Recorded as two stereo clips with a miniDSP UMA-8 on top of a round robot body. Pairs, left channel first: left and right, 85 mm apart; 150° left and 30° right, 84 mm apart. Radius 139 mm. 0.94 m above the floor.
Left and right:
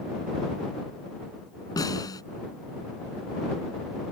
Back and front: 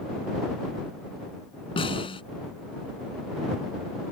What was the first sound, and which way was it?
A snare drum, 135° left.